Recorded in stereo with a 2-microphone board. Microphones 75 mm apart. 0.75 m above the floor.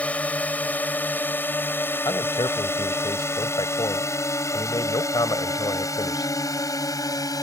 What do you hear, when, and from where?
0.0 s a drone: 20° left (ahead or behind); by 7.4 s 55° left (ahead or behind)
2.0 s a man speaking: 70° left (ahead or behind)